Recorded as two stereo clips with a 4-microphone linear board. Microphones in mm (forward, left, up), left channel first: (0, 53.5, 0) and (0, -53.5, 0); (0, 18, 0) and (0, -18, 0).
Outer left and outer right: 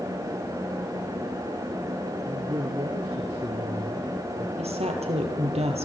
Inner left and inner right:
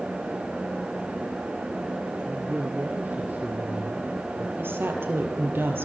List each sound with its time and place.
2.2 s a man speaking: 50° right (ahead or behind), 3 m; by 4.5 s 65° right (ahead or behind), 3.5 m
4.6 s a woman speaking: 70° right (ahead or behind), 4.5 m